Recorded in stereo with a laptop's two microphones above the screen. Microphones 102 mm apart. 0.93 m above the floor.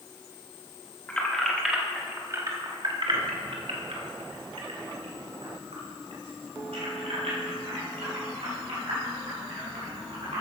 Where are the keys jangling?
15° left (ahead or behind), 1.3 m; by 10.4 s 75° right (ahead or behind), 6 m.